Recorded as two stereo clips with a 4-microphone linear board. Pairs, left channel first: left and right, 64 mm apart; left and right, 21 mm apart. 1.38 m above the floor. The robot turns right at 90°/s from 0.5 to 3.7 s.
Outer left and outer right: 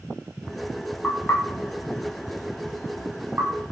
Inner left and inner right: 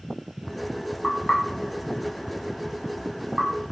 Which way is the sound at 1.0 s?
10° left (ahead or behind).